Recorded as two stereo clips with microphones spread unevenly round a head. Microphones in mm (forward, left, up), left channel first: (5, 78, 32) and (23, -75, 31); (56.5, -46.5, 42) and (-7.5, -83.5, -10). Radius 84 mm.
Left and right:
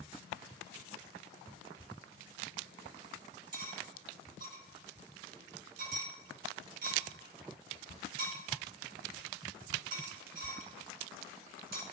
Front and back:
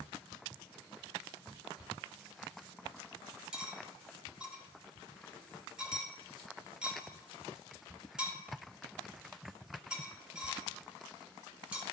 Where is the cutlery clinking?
55° right, 1.5 m.